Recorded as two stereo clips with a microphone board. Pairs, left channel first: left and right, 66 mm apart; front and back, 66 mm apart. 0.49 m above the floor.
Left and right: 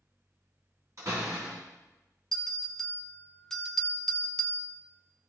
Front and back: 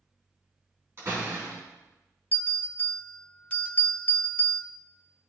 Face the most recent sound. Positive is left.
turn(degrees=15)